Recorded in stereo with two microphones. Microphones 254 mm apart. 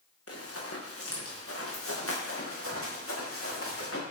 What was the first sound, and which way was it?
Running footsteps, 65° left (ahead or behind).